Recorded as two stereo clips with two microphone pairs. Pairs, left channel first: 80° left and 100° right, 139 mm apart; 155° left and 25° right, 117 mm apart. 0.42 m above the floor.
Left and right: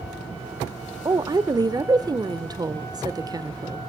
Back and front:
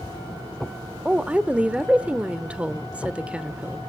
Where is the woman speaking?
95° right, 0.8 m.